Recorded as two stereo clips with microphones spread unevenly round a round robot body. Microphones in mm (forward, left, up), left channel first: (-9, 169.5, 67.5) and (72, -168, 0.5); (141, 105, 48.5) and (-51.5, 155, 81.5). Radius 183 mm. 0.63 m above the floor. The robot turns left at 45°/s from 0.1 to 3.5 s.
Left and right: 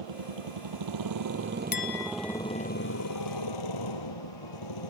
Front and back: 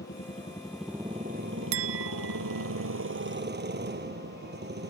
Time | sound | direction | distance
0.0 | a motorcycle | 75° right | ?
1.7 | a clink | 170° left | ?